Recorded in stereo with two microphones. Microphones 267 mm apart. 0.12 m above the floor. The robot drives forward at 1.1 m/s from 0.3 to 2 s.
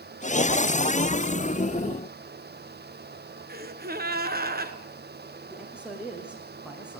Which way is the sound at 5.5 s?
5° right (ahead or behind).